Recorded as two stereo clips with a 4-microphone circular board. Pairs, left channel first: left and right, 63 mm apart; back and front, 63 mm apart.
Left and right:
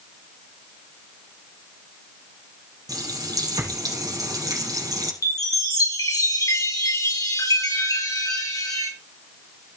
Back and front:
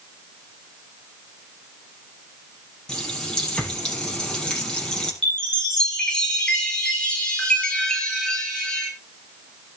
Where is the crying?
No crying in this recording.